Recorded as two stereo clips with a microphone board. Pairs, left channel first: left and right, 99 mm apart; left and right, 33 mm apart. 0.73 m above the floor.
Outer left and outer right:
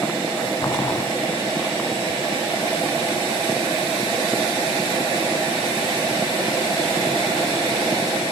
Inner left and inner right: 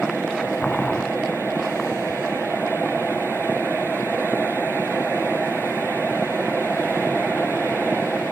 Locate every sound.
0.6 s boiling: 35° left (ahead or behind), 0.9 m